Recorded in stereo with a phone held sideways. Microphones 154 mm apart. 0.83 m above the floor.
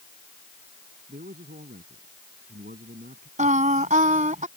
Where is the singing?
55° right (ahead or behind).